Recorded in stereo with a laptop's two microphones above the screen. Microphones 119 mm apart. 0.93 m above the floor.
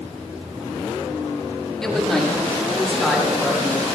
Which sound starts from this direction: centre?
A man speaking, at 1.8 s.